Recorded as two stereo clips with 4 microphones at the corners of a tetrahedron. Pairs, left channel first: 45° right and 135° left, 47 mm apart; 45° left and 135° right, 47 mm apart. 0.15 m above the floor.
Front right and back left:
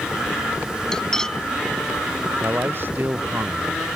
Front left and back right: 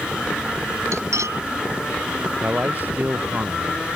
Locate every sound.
0.9 s cutlery clinking: 125° right
2.4 s a man speaking: 175° left